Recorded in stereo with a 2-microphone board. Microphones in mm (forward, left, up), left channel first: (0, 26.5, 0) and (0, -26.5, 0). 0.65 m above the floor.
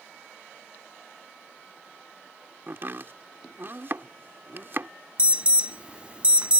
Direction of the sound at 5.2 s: 25° right (ahead or behind).